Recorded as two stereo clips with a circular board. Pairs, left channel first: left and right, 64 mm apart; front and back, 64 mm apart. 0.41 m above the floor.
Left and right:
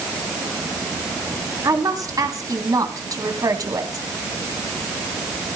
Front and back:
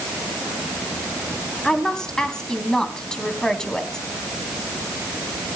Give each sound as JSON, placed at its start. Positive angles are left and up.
{"t": 1.6, "sound": "a woman speaking", "azimuth_deg": -80, "distance_m": 3.0}